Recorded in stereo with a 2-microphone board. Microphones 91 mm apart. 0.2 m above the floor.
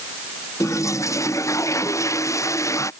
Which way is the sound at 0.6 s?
35° left (ahead or behind).